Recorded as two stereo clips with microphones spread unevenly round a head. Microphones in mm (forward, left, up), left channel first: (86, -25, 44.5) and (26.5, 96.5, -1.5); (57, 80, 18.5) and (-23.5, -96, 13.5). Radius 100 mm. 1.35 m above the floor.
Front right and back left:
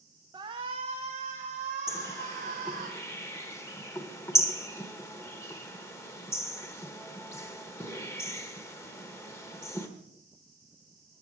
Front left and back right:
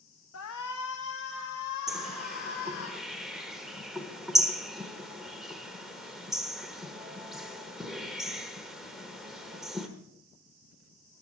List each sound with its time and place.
0.3 s a shout: 60° left, 1.1 m; by 2.9 s 90° left, 4 m
1.9 s a bird: 25° right, 1.3 m